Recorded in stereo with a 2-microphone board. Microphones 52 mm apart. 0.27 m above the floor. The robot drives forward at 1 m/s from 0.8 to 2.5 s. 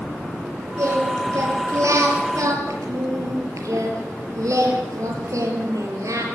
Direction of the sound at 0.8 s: 65° right (ahead or behind).